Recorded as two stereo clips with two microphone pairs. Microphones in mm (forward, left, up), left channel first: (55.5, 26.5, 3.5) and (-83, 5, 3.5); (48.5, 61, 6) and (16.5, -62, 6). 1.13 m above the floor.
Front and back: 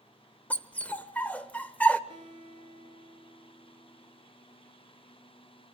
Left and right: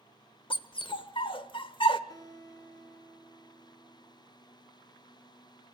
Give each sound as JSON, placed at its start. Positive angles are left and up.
{"t": 0.5, "sound": "a dog barking", "azimuth_deg": 85, "distance_m": 1.0}
{"t": 2.1, "sound": "a guitar", "azimuth_deg": 135, "distance_m": 5.5}